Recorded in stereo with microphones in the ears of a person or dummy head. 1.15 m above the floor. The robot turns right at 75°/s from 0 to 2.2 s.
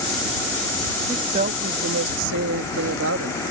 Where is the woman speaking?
160° right; by 3.4 s 80° right.